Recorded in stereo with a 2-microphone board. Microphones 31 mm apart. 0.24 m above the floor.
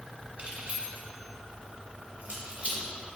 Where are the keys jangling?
50° right (ahead or behind), 1.6 m.